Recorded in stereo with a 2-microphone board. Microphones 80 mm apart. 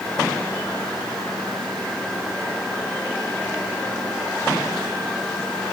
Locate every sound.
Only background noise.